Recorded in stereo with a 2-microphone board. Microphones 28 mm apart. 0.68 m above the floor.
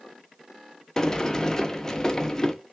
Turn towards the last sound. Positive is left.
turn(degrees=20)  # may be behind; listen again after turning